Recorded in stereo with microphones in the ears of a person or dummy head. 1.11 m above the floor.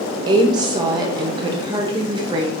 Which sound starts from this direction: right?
A woman speaking, at 0.3 s.